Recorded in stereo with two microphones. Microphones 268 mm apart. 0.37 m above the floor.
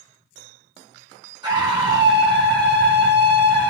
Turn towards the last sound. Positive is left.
turn(degrees=-15)  # may be behind; listen again after turning